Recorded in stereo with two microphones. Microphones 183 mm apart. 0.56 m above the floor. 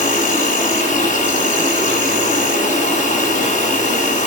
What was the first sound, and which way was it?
An insect, 45° left (ahead or behind).